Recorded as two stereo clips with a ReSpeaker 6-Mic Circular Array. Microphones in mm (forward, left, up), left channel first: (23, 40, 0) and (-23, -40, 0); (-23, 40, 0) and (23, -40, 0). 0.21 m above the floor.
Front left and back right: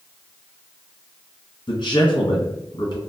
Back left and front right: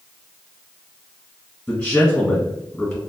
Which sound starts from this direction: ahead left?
A man speaking, at 1.7 s.